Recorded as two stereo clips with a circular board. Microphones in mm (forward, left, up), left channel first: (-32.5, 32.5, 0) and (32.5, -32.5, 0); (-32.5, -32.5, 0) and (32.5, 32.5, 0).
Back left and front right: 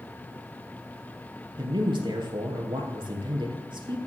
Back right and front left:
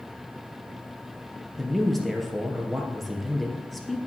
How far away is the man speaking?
About 2.5 m.